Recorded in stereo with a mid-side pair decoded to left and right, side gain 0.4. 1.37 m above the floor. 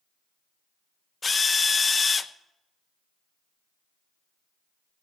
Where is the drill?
35° left, 0.8 m.